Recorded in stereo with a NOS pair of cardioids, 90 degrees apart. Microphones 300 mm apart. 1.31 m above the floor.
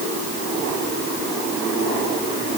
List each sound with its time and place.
Only background noise.